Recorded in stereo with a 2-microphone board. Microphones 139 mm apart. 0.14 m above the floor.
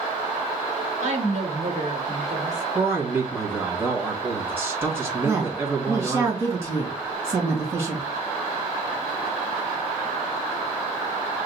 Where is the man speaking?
15° right (ahead or behind), 1.9 m.